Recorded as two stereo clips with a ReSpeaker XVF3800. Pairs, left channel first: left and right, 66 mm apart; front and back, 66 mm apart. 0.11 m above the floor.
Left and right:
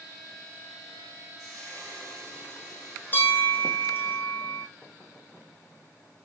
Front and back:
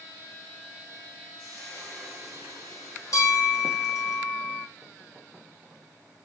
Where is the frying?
65° right, 4 m.